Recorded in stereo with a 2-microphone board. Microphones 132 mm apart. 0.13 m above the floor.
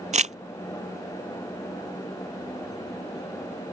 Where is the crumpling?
60° right (ahead or behind).